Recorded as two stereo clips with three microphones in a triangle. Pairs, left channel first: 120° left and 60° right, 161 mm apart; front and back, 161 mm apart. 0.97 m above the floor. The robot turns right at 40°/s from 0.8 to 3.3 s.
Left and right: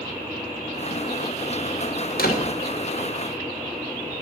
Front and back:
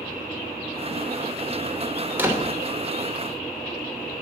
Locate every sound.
2.1 s a door slam: 100° left, 2.5 m; by 2.6 s 115° left, 2.5 m